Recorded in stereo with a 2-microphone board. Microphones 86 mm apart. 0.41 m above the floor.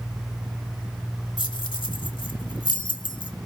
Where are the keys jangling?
65° left (ahead or behind), 1.2 m.